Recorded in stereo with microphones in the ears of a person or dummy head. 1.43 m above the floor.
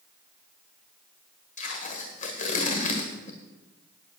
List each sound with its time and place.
1.6 s tape being pulled: 25° left (ahead or behind), 1.5 m